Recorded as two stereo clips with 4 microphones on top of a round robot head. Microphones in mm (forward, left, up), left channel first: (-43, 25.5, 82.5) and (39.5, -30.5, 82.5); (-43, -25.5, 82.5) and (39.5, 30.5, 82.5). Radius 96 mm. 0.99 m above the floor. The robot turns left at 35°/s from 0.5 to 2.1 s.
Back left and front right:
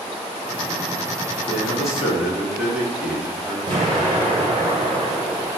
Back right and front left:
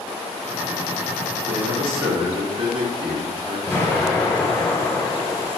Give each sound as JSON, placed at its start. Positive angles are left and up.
{"t": 1.5, "sound": "a man speaking", "azimuth_deg": 65, "distance_m": 1.4}
{"t": 3.7, "sound": "an explosion", "azimuth_deg": -70, "distance_m": 0.7}